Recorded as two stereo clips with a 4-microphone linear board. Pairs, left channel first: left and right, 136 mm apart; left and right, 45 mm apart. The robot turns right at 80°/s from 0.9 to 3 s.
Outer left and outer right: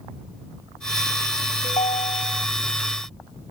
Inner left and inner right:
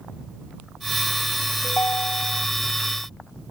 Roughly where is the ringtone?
Left.